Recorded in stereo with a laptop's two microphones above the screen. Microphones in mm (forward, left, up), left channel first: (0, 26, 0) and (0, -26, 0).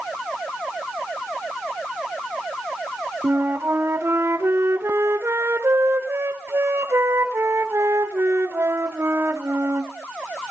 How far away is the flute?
About 3 m.